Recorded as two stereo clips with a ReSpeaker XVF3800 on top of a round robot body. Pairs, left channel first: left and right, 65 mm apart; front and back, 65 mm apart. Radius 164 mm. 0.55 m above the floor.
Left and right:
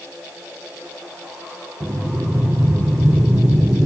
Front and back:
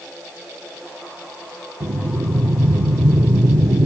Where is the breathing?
155° right, 0.6 m.